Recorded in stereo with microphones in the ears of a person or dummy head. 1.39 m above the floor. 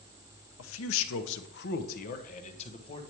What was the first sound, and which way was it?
A man speaking, 75° left (ahead or behind).